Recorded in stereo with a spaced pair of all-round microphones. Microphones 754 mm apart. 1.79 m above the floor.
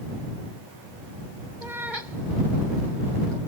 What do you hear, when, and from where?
1.6 s a cat meowing: 75° right (ahead or behind)